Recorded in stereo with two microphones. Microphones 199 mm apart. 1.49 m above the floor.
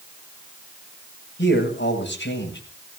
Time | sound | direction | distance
1.4 | a man speaking | 70° left (ahead or behind) | 8 m